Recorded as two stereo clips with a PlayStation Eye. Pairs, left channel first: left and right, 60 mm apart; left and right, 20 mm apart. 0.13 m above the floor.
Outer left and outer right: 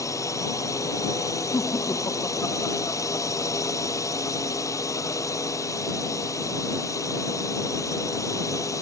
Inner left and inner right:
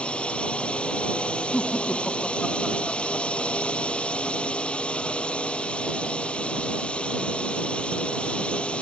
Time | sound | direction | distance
0.0 | a drone | 65° left (ahead or behind) | ?
1.5 | laughter | 60° left (ahead or behind) | ?